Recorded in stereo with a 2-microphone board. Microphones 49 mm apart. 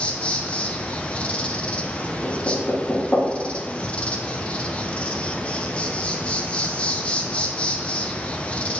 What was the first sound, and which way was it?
An insect, 25° left (ahead or behind).